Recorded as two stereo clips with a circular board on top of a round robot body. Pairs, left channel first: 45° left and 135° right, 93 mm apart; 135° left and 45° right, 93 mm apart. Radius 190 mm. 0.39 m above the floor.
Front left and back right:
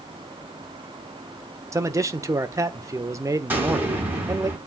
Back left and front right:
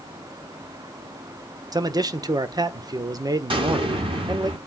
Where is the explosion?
65° right, 5.5 m.